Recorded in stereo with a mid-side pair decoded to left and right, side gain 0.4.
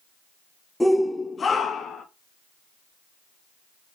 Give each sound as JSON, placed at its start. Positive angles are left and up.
{"t": 0.8, "sound": "a shout", "azimuth_deg": 5, "distance_m": 1.2}